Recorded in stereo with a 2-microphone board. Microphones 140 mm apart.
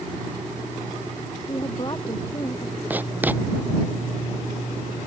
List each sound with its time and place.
1.5 s a woman speaking: 35° left (ahead or behind)
2.9 s writing: 10° right (ahead or behind)